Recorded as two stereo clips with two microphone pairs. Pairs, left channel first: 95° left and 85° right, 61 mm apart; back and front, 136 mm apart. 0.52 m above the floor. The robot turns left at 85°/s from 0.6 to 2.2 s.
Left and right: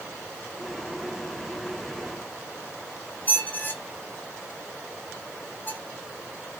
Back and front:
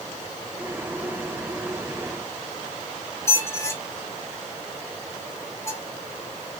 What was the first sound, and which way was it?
A squeak, 125° left.